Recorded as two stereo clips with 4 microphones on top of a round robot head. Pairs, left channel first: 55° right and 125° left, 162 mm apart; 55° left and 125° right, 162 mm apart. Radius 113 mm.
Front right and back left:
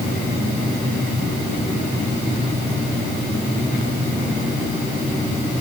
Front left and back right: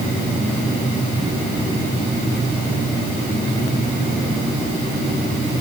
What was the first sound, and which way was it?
Only background noise.